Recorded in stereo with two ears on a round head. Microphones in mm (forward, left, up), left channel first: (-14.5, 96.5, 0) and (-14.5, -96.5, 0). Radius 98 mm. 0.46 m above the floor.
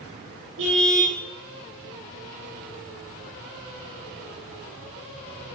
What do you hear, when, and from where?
0.6 s a car horn: 60° right (ahead or behind), 7 m